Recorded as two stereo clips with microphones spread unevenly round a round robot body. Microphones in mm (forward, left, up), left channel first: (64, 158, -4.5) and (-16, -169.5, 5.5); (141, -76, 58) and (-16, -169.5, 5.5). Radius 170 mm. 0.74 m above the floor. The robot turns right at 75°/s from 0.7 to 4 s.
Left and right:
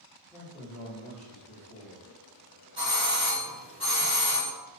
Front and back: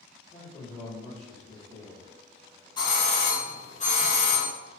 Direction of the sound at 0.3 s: 15° right.